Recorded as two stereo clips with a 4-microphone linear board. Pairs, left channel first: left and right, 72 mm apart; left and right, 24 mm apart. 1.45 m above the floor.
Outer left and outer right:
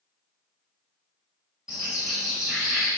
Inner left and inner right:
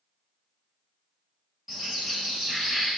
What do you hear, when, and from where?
1.7 s a bird: 5° right (ahead or behind), 1.6 m